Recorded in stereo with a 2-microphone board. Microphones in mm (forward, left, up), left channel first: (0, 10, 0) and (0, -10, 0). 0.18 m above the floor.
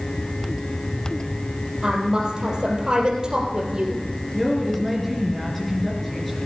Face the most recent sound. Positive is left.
turn(degrees=10)  # may be behind; listen again after turning